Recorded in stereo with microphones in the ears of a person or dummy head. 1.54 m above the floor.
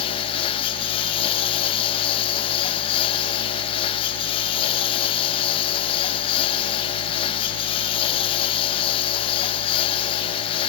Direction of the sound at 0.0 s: 35° left (ahead or behind).